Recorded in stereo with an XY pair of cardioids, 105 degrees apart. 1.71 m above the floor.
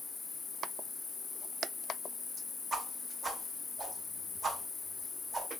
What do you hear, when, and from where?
0.0 s an insect: 45° left, 0.7 m
2.7 s a whoosh: 30° right, 0.7 m